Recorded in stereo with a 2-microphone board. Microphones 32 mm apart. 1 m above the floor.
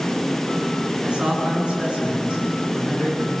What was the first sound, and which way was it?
A man speaking, 30° right (ahead or behind).